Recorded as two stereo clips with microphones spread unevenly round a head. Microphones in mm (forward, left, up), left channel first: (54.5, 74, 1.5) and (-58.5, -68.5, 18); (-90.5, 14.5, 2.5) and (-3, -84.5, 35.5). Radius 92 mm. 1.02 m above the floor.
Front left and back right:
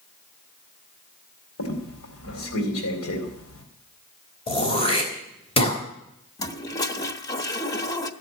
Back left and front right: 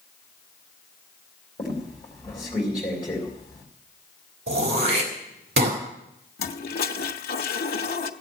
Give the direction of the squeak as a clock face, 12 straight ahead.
10 o'clock.